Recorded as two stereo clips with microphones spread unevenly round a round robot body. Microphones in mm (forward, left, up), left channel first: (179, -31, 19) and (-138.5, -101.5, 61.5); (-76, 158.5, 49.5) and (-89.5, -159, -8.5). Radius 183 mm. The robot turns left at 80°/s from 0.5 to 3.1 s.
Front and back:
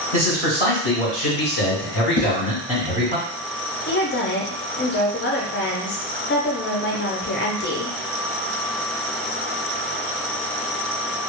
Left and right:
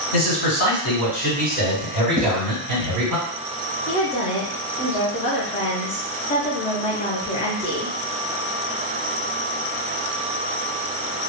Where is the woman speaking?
15° left, 0.6 m.